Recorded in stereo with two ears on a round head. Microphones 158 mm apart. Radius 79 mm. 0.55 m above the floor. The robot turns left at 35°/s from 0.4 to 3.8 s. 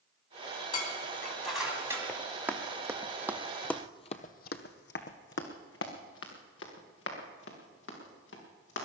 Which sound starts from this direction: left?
Dishes clattering, at 0.7 s.